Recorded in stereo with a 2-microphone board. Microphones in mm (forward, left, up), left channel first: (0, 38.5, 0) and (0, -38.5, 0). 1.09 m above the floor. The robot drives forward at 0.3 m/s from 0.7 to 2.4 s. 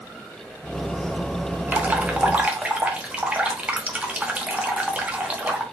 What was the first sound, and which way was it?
Dripping, 25° right (ahead or behind).